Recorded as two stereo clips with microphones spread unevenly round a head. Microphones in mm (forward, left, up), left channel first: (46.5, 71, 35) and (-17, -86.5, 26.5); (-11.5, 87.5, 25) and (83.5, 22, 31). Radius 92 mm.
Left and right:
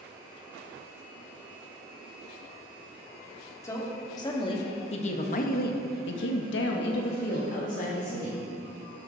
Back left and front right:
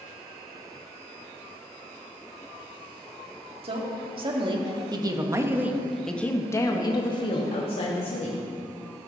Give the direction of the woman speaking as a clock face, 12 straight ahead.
12 o'clock.